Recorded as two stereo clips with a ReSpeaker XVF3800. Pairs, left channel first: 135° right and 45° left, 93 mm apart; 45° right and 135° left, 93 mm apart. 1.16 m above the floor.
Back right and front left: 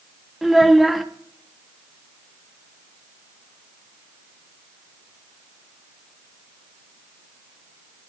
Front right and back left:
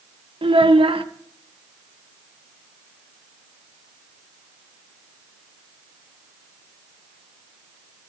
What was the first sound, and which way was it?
A child speaking, 135° left.